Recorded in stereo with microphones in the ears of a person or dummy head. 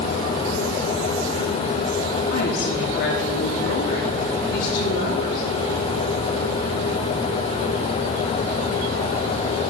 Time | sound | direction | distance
2.3 | a woman speaking | 65° left (ahead or behind) | 1.2 m